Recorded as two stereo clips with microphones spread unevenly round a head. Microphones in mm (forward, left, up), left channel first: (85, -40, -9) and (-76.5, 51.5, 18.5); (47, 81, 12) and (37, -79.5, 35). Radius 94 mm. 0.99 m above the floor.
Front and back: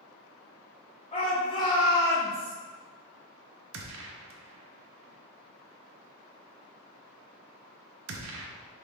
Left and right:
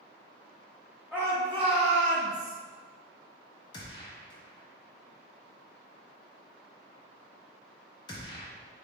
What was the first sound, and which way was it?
A shout, 10° right.